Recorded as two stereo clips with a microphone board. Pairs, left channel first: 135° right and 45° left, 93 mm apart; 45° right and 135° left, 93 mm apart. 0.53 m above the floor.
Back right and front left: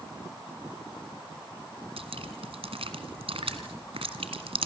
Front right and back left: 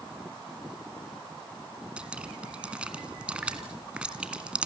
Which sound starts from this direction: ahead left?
Dripping, at 2.0 s.